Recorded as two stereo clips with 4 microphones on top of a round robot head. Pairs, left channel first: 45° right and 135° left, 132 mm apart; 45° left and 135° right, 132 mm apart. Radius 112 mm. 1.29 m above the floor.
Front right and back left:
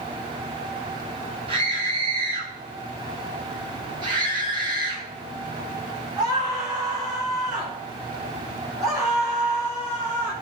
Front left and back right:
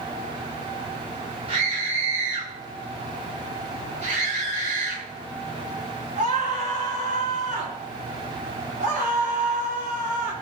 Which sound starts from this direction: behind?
A scream, at 1.5 s.